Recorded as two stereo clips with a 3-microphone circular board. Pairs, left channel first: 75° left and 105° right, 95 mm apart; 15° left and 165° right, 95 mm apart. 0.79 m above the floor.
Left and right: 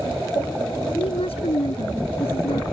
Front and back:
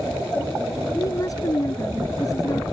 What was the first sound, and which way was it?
A woman speaking, 70° left.